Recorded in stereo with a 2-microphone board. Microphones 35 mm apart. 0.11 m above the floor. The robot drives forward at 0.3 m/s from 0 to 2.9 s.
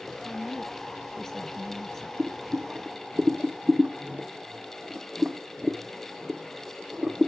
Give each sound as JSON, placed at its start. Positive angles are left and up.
{"t": 0.2, "sound": "a woman speaking", "side_deg": 10, "distance_m": 1.3}
{"t": 2.2, "sound": "boiling", "side_deg": -35, "distance_m": 1.0}